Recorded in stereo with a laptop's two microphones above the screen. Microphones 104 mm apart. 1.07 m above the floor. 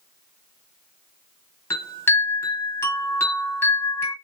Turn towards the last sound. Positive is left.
turn(degrees=25)  # may be behind; listen again after turning